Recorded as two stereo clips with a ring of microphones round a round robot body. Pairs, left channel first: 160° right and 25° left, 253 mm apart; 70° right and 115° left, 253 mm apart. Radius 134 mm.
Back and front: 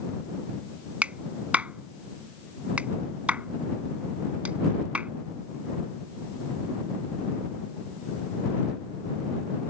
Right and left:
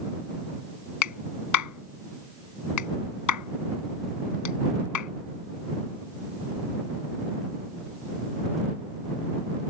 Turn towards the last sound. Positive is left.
turn(degrees=-65)